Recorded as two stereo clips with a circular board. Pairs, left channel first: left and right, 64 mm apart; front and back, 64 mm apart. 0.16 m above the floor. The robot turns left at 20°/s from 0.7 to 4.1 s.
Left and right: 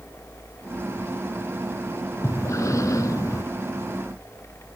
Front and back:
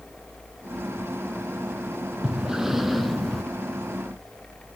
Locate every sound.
2.2 s breathing: 105° left, 0.7 m; by 3.4 s 85° left, 0.7 m